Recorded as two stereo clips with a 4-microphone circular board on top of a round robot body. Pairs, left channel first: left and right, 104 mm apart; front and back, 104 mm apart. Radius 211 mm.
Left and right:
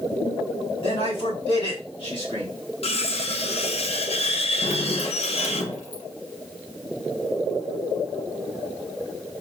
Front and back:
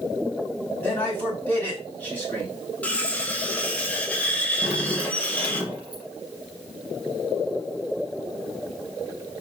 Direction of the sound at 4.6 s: 100° left.